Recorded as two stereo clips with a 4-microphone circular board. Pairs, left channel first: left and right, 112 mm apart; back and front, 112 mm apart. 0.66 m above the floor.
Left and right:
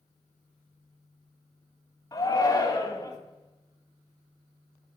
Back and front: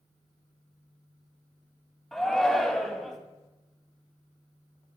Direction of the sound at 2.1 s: 95° left.